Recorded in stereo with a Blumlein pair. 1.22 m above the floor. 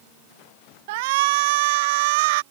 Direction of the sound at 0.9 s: 50° right.